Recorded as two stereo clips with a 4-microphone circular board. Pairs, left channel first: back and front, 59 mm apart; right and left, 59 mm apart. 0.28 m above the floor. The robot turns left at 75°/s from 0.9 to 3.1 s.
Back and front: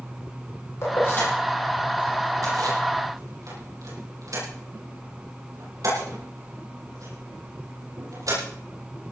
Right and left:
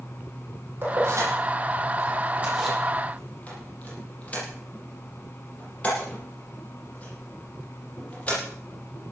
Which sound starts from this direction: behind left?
Keys jangling, at 0.8 s.